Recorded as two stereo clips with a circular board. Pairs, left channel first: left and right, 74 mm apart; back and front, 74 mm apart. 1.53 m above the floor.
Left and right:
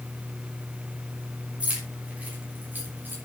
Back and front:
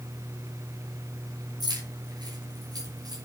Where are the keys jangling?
15° right, 5.5 m; by 3.1 s 30° right, 5 m.